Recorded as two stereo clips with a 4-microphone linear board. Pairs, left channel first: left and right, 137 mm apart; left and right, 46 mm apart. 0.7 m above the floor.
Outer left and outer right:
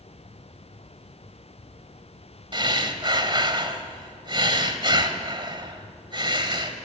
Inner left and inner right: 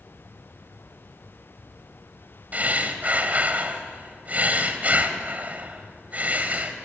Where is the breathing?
35° right (ahead or behind), 1.7 m.